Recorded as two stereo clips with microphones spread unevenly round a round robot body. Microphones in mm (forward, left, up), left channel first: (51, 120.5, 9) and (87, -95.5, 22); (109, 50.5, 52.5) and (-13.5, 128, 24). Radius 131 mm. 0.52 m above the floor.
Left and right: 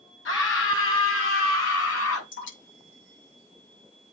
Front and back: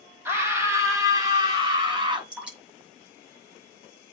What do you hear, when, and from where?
0.2 s a scream: 75° left, 4 m; by 2.2 s 90° left, 5.5 m
2.3 s dripping: 65° left, 6 m